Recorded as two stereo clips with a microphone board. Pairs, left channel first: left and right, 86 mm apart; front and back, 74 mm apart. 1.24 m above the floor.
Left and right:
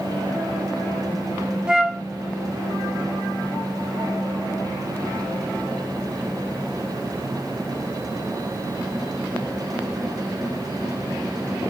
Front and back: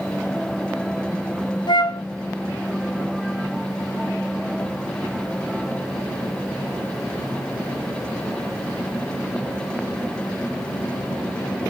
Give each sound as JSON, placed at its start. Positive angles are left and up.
{"t": 1.7, "sound": "a flute", "azimuth_deg": -10, "distance_m": 0.6}